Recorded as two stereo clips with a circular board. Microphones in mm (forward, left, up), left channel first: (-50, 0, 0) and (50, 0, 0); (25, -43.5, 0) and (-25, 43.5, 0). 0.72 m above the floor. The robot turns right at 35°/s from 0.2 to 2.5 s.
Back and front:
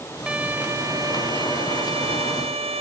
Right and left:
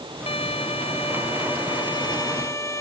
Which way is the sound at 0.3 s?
80° right.